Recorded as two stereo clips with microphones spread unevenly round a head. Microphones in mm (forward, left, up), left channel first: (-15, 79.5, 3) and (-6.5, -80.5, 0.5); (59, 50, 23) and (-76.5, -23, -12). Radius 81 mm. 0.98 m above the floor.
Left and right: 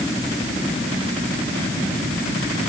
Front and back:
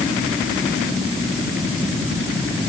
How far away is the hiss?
I don't hear a hiss.